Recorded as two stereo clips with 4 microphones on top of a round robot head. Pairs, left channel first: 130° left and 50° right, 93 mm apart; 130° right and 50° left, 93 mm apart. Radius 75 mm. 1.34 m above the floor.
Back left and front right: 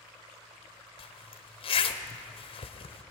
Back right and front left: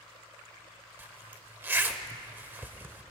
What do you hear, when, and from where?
1.0 s a zipper: 115° left, 0.8 m